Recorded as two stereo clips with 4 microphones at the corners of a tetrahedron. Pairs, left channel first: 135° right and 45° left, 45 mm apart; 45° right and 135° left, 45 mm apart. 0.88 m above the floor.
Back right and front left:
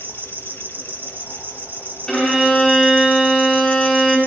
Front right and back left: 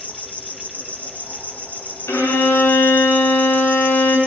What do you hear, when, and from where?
0.0 s an insect: 5° left, 2 m
2.1 s a violin: 55° right, 8 m